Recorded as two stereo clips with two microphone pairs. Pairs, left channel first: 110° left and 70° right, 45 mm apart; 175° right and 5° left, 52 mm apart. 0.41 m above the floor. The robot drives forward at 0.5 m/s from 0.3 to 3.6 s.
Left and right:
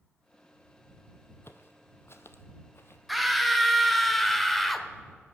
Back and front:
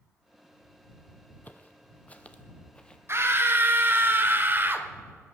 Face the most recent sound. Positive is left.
turn(degrees=20)